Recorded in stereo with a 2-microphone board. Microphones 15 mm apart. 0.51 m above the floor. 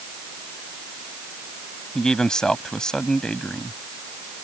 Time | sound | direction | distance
1.9 | a man speaking | 55° left (ahead or behind) | ?